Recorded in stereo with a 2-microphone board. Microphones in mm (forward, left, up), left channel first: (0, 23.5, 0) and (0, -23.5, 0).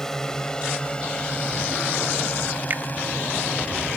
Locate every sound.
0.0 s a drone: 10° left (ahead or behind); by 4.0 s 40° left (ahead or behind)
2.7 s a finger snap: 40° right (ahead or behind)